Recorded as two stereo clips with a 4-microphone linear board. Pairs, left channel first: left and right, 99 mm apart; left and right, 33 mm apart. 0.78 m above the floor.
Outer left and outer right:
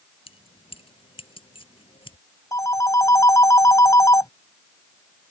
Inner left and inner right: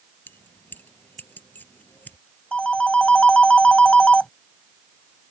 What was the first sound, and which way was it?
Keys jangling, 70° left (ahead or behind).